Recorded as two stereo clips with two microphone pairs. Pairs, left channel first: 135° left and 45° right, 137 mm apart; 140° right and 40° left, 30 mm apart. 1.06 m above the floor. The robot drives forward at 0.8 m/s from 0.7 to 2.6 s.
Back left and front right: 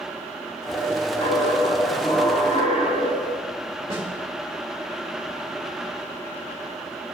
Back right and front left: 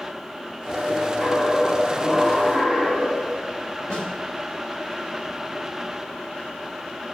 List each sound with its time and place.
1.2 s a dropped coin: 170° left, 3.5 m; by 3.4 s 175° left, 5 m
3.9 s a snare drum: 95° right, 2 m